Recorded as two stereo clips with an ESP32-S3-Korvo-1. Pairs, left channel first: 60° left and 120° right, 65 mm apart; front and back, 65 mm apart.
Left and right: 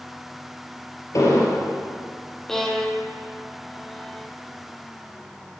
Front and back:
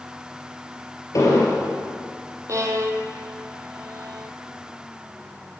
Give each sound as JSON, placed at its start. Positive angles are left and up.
{"t": 1.1, "sound": "an explosion", "azimuth_deg": 30, "distance_m": 3.0}
{"t": 2.5, "sound": "a violin", "azimuth_deg": 145, "distance_m": 1.3}